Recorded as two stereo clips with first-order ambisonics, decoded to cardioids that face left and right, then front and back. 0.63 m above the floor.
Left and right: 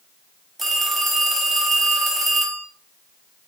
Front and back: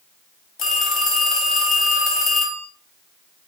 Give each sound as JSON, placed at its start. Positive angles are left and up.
{"t": 0.6, "sound": "a phone ringing", "azimuth_deg": -15, "distance_m": 0.7}